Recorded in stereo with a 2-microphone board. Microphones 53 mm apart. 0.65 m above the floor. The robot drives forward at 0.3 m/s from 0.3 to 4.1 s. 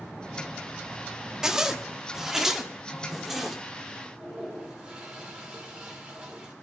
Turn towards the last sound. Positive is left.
turn(degrees=-20)  # may be behind; listen again after turning